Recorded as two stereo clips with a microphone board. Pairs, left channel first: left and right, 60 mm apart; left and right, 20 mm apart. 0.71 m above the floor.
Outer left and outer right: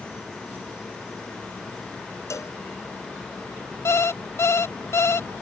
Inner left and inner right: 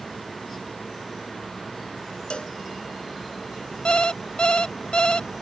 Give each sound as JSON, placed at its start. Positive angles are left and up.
{"t": 2.3, "sound": "a cowbell", "side_deg": 55}
{"t": 3.9, "sound": "an alarm clock", "side_deg": 45}